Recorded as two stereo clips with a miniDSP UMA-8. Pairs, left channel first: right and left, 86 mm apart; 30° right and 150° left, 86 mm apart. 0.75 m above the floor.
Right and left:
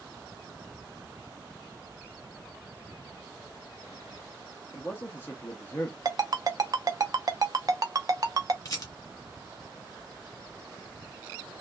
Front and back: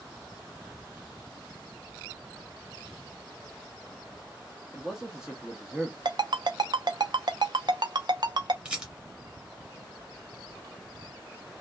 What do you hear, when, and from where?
4.7 s a man speaking: 135° right, 0.6 m
6.0 s a ringtone: 130° left, 0.5 m
8.7 s a rattle: 130° right, 1.1 m